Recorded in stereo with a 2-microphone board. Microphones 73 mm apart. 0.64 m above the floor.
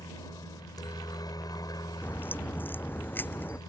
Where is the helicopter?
60° left (ahead or behind).